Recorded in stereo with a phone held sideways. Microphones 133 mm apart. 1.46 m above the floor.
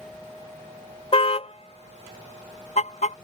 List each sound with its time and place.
1.1 s a car horn: 45° left (ahead or behind); by 3.1 s 60° left (ahead or behind)